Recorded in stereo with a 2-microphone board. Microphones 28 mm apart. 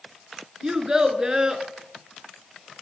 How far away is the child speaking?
About 0.8 m.